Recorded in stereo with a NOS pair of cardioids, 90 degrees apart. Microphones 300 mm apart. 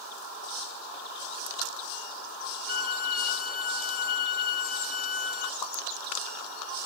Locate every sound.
2.7 s a violin: 30° left, 0.7 m
5.6 s a pop: 65° left, 0.7 m